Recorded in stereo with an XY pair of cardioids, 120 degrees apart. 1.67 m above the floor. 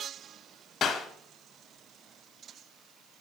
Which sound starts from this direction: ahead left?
A clap, at 0.8 s.